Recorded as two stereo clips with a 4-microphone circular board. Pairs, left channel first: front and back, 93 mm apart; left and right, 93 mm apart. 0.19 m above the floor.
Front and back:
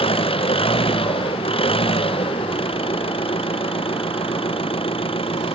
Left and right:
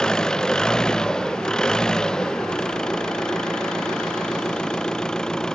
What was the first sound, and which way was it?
An engine running, 5° left.